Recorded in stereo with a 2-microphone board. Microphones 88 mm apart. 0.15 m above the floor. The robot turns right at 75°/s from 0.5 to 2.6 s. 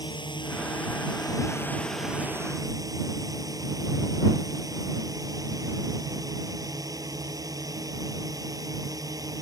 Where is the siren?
I don't hear a siren.